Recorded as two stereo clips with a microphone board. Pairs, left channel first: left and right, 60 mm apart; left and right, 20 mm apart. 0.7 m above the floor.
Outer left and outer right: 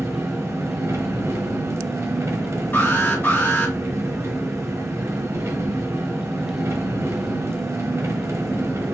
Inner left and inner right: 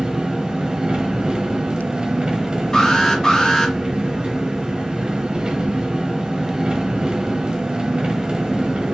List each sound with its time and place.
0.0 s an engine running: 50° right (ahead or behind), 1.1 m
2.7 s an alarm: 30° left (ahead or behind), 2.5 m